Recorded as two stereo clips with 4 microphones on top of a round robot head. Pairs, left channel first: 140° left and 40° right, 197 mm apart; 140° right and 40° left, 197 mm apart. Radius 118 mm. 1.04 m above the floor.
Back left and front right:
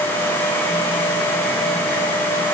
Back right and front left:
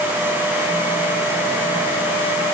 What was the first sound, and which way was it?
Only background noise.